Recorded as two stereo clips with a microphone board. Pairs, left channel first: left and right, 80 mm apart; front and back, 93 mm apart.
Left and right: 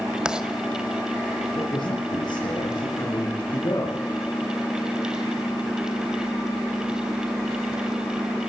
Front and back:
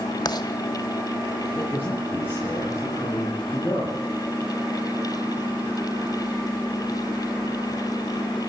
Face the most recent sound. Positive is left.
turn(degrees=65)